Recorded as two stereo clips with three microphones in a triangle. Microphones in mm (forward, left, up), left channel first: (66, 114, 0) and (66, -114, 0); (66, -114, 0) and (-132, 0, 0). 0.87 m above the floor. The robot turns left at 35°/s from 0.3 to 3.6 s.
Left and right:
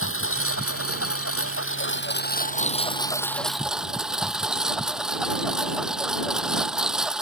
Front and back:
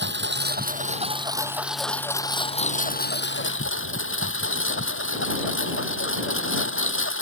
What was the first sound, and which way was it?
A lawn mower, 115° left.